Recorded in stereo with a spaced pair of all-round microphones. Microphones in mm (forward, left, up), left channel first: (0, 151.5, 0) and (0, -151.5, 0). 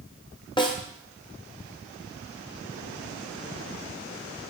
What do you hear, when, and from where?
0.6 s a snare drum: 15° left (ahead or behind), 0.7 m